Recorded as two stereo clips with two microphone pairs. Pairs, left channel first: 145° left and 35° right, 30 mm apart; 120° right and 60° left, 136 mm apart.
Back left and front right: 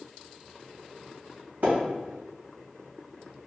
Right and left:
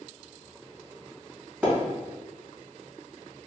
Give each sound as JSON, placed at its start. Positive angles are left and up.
{"t": 1.6, "sound": "a splash", "azimuth_deg": -15, "distance_m": 1.7}